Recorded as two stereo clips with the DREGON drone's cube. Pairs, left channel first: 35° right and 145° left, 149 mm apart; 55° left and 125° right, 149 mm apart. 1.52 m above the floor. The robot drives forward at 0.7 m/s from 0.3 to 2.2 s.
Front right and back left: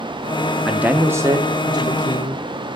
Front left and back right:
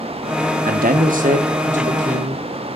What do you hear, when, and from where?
0.7 s a man speaking: 130° right, 0.8 m; by 2.4 s 160° right, 1.7 m